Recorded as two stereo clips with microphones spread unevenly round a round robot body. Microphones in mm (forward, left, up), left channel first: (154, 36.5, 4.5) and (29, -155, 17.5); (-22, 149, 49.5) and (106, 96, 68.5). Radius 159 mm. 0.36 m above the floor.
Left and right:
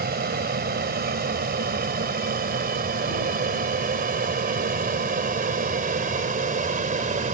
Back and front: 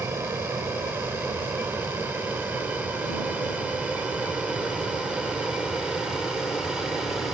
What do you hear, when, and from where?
0.0 s an aircraft: 100° right; by 7.3 s 120° right